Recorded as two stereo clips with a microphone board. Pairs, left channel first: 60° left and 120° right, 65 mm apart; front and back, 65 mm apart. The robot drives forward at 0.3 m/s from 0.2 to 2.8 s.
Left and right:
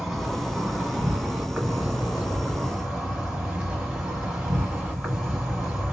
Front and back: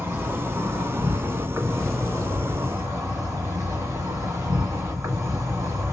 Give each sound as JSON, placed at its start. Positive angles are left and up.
{"t": 0.0, "sound": "an insect", "azimuth_deg": 155, "distance_m": 1.4}